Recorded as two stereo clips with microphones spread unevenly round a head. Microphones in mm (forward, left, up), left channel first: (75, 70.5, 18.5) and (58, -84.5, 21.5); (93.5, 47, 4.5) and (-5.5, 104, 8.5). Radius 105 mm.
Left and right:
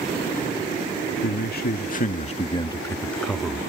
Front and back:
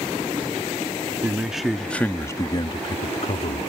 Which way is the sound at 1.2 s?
70° left.